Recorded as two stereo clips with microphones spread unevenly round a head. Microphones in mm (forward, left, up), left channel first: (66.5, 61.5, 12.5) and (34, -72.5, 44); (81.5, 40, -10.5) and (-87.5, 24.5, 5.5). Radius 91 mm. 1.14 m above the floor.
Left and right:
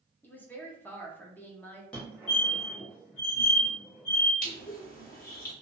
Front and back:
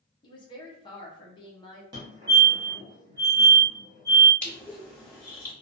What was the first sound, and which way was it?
A woman speaking, 35° left.